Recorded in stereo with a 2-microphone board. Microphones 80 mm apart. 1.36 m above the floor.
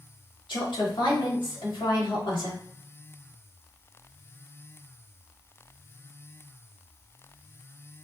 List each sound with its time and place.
0.5 s a woman speaking: 85° left, 2 m